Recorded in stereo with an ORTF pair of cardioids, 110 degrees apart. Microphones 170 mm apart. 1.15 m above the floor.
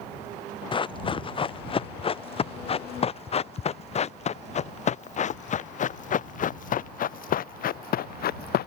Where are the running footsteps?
30° left; by 8.7 s 65° left.